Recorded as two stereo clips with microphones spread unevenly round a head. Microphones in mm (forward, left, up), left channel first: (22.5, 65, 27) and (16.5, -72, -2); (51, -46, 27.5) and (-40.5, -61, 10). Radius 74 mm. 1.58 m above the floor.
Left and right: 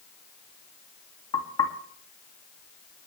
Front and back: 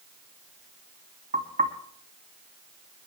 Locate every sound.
1.3 s knocking: 150° left, 2 m